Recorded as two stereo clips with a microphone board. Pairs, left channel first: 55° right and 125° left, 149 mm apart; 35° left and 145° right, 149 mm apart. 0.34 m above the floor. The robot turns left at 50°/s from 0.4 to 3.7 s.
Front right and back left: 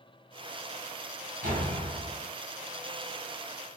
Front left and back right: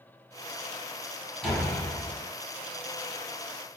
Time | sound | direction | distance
1.4 | a door slam | 120° left | 2.5 m